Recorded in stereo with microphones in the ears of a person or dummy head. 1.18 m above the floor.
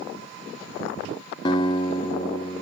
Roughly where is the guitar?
Left.